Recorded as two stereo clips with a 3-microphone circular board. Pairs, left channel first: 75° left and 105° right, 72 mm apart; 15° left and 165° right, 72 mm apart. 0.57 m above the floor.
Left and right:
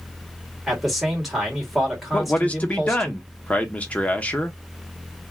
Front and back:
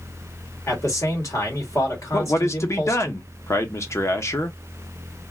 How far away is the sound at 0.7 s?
About 1.9 m.